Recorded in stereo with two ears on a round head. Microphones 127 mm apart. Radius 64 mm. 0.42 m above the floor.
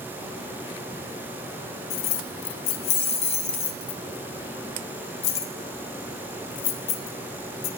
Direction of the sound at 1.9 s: 50° left (ahead or behind).